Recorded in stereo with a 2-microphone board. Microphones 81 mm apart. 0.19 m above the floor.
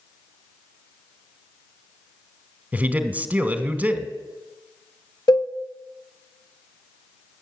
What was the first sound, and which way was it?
A man speaking, 20° right (ahead or behind).